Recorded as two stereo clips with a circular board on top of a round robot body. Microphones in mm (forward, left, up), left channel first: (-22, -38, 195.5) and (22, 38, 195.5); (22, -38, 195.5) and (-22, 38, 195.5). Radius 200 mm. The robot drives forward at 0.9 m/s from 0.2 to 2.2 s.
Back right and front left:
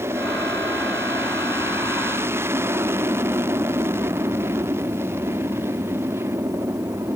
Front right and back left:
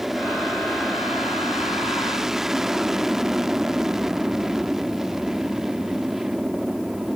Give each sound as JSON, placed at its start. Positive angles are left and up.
{"t": 0.0, "sound": "an aircraft", "azimuth_deg": 35}